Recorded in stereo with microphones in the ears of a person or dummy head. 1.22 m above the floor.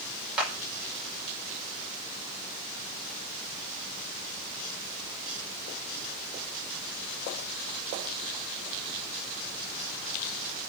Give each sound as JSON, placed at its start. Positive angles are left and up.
{"t": 0.4, "sound": "a clap", "side_deg": -10, "distance_m": 4.5}